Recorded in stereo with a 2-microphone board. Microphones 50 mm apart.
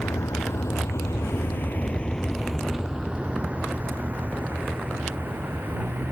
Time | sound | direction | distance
0.0 | a vehicle | 80° left | ?